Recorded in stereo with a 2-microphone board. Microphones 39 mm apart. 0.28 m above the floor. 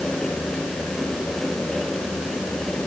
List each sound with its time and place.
Only background noise.